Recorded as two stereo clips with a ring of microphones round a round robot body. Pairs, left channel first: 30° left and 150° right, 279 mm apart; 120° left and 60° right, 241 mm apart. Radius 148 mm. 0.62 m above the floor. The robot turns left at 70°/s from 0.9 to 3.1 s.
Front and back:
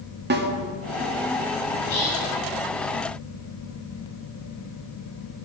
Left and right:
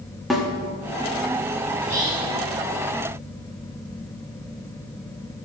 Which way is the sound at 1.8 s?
30° left.